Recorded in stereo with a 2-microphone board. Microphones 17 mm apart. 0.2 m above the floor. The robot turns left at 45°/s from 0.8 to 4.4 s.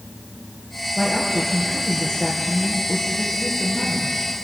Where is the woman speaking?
175° right, 3.5 m; by 4.4 s 30° left, 3.5 m.